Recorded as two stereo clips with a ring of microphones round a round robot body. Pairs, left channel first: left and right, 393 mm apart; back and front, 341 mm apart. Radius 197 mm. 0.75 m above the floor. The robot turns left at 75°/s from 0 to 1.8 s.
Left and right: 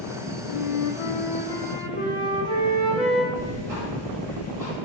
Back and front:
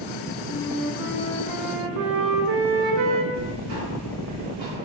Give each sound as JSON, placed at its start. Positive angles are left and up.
{"t": 0.5, "sound": "a flute", "azimuth_deg": 110, "distance_m": 0.6}
{"t": 3.3, "sound": "ticking", "azimuth_deg": -5, "distance_m": 2.0}